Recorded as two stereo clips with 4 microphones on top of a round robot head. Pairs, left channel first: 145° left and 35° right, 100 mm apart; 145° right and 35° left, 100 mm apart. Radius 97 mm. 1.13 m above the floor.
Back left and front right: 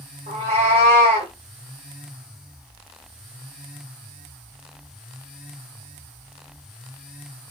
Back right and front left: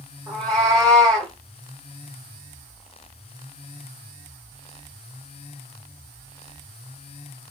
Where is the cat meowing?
25° right, 1.1 m.